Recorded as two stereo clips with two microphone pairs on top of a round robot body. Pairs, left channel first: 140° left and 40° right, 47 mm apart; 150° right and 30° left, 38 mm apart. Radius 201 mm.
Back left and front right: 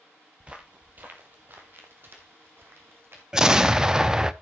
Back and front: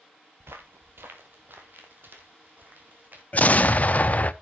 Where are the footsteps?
25° left, 0.8 m; by 3.2 s 10° right, 2 m.